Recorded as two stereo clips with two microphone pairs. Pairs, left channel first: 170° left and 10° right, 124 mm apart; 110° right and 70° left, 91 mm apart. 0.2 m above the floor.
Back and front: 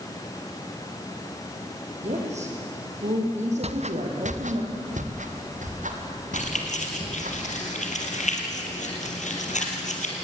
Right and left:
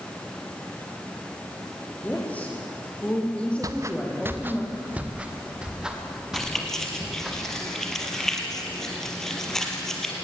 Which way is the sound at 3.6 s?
20° left.